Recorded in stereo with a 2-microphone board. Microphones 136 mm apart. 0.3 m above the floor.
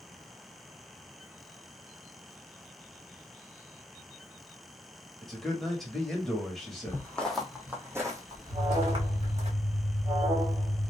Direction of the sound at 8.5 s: 25° right (ahead or behind).